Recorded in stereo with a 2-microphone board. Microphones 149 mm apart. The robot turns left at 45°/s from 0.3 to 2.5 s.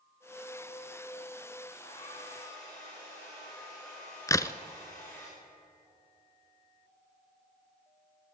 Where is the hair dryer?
50° left, 8 m; by 5.3 s 15° left, 8 m.